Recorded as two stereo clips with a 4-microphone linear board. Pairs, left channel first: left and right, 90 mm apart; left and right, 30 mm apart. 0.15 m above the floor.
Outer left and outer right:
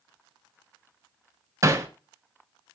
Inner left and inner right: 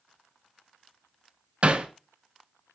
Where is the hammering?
35° right (ahead or behind), 0.8 m.